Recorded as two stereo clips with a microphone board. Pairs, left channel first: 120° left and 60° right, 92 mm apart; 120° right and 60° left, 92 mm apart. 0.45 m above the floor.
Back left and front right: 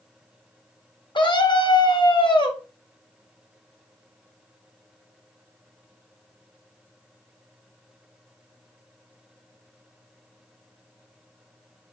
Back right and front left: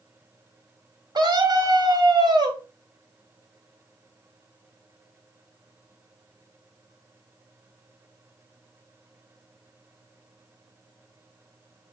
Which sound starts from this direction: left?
A scream, at 1.1 s.